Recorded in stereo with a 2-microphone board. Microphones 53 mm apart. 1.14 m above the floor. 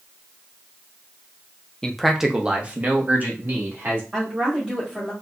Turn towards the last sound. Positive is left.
turn(degrees=-15)  # may be behind; listen again after turning